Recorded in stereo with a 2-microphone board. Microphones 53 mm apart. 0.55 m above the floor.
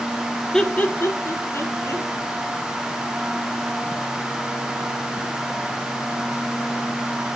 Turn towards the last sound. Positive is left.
turn(degrees=70)  # may be behind; listen again after turning